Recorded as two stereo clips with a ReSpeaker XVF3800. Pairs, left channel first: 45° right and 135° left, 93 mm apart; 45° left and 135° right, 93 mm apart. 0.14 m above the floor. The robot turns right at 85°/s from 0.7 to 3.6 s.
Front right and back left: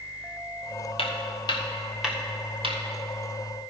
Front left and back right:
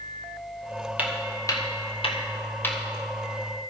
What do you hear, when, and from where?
1.0 s footsteps: 60° right, 1.6 m; by 2.8 s 130° left, 1.6 m